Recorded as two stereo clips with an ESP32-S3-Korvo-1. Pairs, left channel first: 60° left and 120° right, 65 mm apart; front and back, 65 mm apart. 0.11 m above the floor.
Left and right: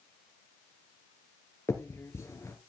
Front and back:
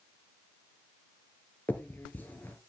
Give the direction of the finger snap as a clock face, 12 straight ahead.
10 o'clock.